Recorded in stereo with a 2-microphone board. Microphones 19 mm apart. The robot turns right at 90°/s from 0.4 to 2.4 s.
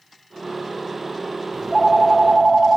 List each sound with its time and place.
1.5 s a phone ringing: 165° left, 1.1 m; by 2.8 s 120° right, 1.1 m